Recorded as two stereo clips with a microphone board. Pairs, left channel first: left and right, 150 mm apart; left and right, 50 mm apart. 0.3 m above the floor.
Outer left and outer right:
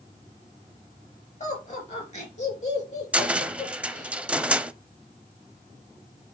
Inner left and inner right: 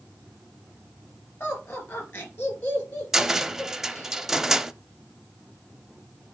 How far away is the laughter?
About 4.5 m.